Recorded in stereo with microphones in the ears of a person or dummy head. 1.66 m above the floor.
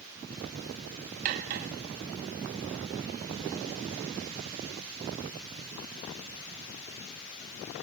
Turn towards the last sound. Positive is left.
turn(degrees=-35)  # may be behind; listen again after turning